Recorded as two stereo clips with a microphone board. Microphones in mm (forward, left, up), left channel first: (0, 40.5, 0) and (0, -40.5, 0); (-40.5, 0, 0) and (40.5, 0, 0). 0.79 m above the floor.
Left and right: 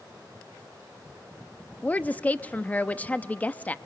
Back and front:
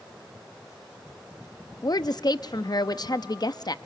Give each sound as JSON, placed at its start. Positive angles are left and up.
{"t": 1.8, "sound": "a woman speaking", "azimuth_deg": 160, "distance_m": 0.7}